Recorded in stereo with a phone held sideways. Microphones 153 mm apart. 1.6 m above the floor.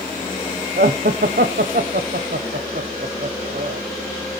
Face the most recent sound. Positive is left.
turn(degrees=-80)